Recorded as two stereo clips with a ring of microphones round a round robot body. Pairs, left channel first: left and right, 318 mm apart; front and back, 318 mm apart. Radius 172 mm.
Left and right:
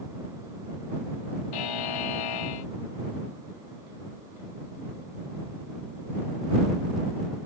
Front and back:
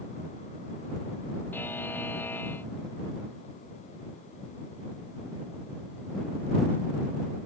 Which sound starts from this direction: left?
A buzzer, at 1.5 s.